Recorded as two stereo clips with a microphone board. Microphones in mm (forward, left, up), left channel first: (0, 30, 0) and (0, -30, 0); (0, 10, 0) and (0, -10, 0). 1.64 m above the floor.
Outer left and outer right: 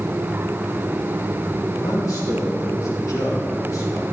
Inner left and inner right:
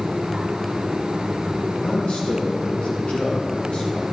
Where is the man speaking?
65° left (ahead or behind), 2.5 m; by 4.0 s 75° left (ahead or behind), 5 m.